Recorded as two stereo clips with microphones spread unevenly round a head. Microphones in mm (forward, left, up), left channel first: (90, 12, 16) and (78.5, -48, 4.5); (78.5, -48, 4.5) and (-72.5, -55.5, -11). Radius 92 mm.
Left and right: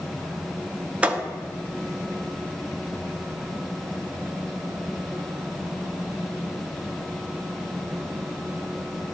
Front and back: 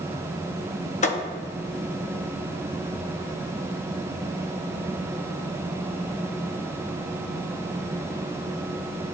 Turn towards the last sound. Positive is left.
turn(degrees=-25)